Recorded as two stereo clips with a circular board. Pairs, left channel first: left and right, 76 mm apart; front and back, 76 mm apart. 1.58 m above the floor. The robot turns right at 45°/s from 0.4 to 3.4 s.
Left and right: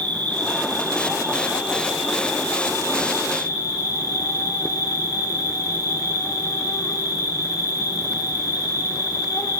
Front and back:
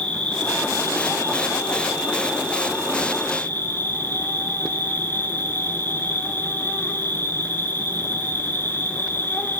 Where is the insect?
75° right, 1.5 m; by 9.6 s 60° left, 1.5 m.